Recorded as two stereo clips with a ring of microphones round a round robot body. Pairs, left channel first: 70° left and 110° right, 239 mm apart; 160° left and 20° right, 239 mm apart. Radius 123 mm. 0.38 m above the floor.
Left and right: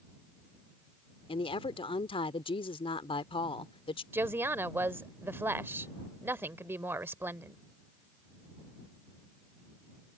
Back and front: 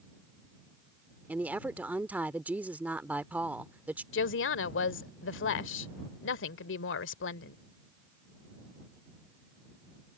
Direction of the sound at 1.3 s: 50° left.